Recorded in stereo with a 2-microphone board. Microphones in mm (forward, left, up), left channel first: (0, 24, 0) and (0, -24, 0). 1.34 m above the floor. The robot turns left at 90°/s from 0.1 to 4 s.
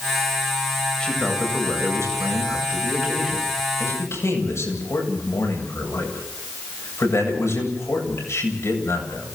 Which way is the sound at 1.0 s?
15° left.